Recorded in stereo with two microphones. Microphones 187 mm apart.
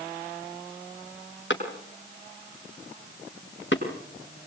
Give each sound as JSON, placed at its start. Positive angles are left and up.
{"t": 1.5, "sound": "a clap", "side_deg": 80, "distance_m": 6.0}